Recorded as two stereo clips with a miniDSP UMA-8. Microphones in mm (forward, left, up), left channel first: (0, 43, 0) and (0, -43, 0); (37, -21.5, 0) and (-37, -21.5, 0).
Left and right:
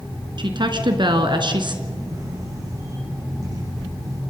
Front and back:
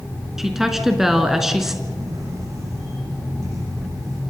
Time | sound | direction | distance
0.4 | a woman speaking | 95° right | 3 m
1.8 | a camera shutter | 135° right | 9 m